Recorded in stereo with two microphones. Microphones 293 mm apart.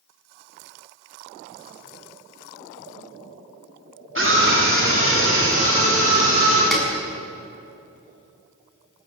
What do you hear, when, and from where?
4.2 s a scream: 40° right (ahead or behind), 3.5 m; by 6.6 s 45° right (ahead or behind), 5.5 m
6.7 s a snare drum: centre (ahead or behind), 6.5 m